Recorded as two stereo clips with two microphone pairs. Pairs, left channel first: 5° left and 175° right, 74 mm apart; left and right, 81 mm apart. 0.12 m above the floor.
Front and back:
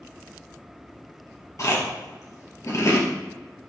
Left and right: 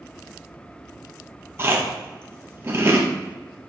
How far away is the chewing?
About 2 m.